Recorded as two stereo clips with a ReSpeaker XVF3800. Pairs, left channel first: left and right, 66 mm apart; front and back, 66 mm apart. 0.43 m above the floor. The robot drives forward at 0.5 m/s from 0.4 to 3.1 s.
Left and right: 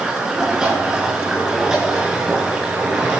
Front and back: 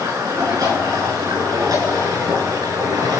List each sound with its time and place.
0.0 s running water: 170° right, 5 m